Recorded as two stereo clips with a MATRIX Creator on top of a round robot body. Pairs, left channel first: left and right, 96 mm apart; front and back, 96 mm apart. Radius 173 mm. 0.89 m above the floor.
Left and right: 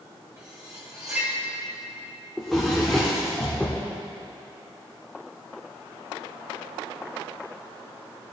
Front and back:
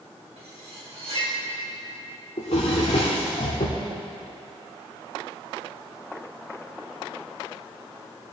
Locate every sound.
0.4 s cutlery clinking: 155° right, 3 m
2.4 s a drawer: 5° left, 0.6 m